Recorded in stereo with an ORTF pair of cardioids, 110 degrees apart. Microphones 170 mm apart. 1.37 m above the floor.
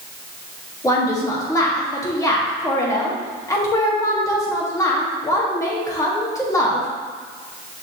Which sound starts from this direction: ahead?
A woman speaking, at 0.8 s.